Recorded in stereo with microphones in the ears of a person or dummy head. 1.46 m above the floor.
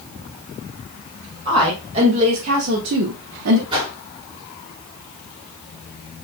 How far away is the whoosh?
About 2 m.